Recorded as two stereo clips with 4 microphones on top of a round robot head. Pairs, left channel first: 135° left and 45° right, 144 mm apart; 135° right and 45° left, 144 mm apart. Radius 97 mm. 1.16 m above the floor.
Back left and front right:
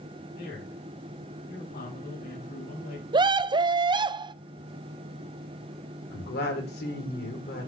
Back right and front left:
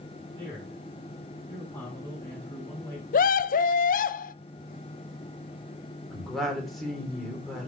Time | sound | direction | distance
0.3 | a man speaking | 145° left | 7.5 m
3.1 | a scream | 105° right | 0.6 m
6.1 | a woman speaking | 135° left | 4 m